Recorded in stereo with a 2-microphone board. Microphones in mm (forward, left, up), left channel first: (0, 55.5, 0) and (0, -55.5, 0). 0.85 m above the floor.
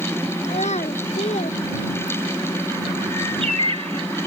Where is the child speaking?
75° left (ahead or behind); by 2.5 s 90° left.